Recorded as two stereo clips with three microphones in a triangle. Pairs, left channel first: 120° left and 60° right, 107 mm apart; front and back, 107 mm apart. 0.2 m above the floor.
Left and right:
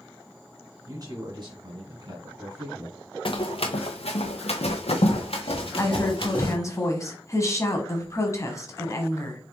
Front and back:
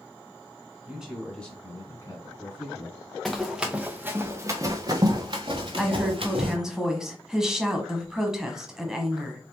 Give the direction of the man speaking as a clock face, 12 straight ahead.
3 o'clock.